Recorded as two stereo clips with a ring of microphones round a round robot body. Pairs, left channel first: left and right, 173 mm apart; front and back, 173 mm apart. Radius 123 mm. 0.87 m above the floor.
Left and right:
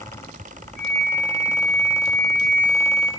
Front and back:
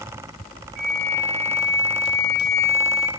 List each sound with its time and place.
0.8 s a flute: 160° left, 1.5 m